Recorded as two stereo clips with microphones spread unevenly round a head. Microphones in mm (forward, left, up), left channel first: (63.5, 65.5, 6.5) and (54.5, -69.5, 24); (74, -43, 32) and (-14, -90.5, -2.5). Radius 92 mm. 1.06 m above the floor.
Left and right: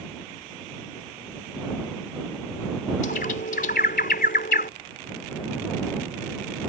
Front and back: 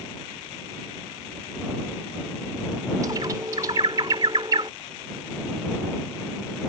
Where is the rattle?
I don't hear a rattle.